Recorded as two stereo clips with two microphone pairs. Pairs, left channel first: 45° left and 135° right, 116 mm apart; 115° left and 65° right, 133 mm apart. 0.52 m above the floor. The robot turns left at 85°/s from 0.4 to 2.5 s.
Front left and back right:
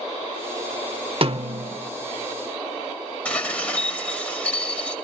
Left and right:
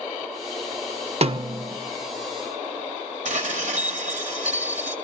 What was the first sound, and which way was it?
A snare drum, 100° right.